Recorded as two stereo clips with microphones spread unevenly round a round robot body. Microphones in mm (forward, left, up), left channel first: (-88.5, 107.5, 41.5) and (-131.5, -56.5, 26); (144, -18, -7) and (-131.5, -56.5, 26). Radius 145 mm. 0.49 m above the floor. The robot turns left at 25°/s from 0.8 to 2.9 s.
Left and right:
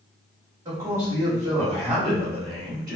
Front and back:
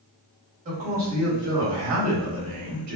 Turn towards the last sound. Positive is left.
turn(degrees=-175)